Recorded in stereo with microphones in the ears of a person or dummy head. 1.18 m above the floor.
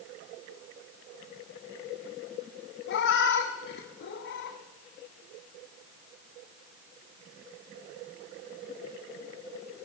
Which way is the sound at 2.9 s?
65° left (ahead or behind).